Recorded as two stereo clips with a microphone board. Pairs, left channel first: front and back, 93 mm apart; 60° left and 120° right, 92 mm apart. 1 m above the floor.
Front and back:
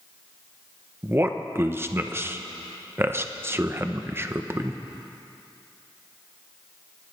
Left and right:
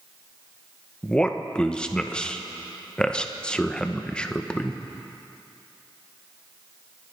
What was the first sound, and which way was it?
A man speaking, 135° left.